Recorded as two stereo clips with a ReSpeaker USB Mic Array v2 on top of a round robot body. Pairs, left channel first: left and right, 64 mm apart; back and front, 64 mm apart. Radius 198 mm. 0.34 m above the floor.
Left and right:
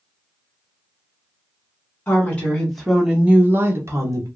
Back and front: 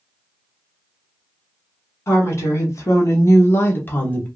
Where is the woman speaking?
145° left, 1.4 m; by 4.3 s 115° right, 1.4 m.